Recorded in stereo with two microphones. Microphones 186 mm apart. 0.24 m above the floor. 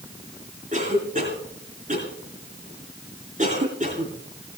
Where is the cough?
45° right (ahead or behind), 10 m.